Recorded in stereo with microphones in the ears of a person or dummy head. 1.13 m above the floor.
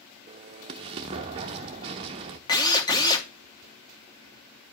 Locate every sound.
0.3 s an explosion: 20° right (ahead or behind), 0.5 m
2.5 s a drill: 20° left (ahead or behind), 0.9 m